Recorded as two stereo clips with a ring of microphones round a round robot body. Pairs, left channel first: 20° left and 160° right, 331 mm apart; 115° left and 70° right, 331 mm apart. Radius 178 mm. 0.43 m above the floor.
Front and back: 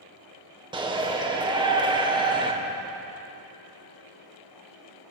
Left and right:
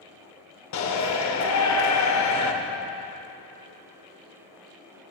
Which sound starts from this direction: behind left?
A shout, at 0.7 s.